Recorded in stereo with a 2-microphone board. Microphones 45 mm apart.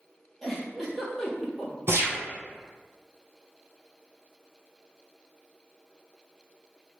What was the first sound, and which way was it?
A giggle, 5° left (ahead or behind).